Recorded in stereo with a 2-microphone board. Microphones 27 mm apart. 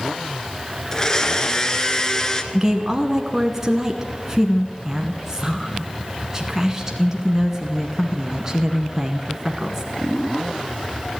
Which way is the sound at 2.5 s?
20° right (ahead or behind).